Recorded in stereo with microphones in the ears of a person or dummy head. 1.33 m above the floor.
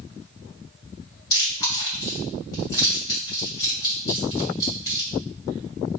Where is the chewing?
20° left (ahead or behind), 1.4 m.